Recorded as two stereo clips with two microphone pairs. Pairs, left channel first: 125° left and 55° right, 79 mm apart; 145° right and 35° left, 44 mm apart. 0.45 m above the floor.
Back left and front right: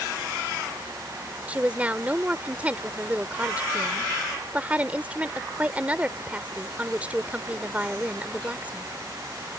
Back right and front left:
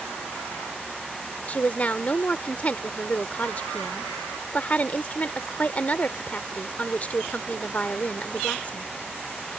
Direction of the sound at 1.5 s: 115° right.